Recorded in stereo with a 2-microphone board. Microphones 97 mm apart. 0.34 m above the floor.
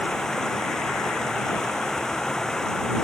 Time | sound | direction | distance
0.0 | running water | 5° left (ahead or behind) | ?